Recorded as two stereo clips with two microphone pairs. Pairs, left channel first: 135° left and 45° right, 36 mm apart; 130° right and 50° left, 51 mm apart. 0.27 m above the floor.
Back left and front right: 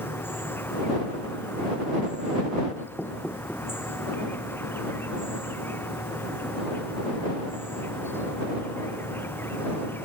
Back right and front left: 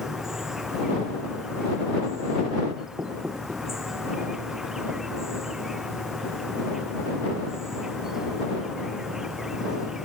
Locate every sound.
0.0 s an insect: 130° left
3.0 s knocking: 85° left